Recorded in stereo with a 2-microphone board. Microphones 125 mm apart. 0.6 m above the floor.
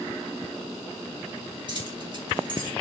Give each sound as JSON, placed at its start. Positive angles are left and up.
{"t": 1.7, "sound": "keys jangling", "side_deg": -40, "distance_m": 2.5}